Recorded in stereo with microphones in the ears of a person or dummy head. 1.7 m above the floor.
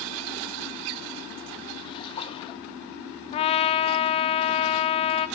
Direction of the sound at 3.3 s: 35° left (ahead or behind).